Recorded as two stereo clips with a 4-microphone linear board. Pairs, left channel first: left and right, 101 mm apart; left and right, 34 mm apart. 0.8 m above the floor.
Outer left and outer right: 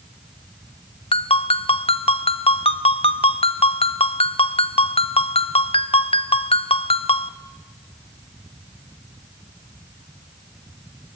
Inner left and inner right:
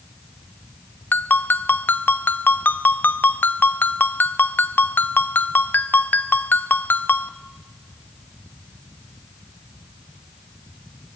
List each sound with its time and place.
1.1 s a ringtone: 70° left (ahead or behind), 0.9 m